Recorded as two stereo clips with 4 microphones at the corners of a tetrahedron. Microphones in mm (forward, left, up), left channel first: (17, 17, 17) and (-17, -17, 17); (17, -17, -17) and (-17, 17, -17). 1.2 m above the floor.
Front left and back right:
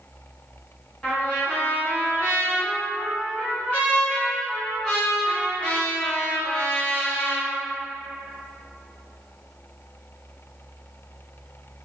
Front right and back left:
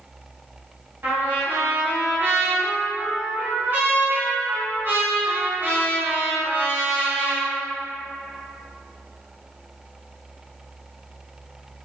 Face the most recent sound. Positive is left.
turn(degrees=105)